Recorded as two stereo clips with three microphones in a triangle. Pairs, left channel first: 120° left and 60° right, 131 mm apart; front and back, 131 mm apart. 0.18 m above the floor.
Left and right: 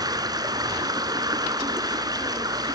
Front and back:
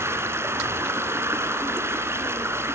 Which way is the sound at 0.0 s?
115° right.